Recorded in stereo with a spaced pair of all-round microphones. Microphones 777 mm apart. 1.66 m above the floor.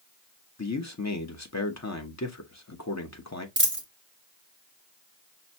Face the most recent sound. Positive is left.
turn(degrees=-15)  # may be behind; listen again after turning